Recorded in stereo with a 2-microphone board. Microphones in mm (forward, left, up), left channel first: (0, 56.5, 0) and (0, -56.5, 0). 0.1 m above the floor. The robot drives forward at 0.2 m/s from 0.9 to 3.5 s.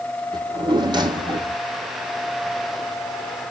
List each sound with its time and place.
0.3 s a drawer: 40° right (ahead or behind), 1.2 m; by 1.6 s 45° right (ahead or behind), 1.1 m